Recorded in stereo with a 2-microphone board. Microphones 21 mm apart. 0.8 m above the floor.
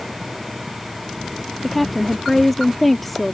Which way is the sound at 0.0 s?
Centre (ahead or behind).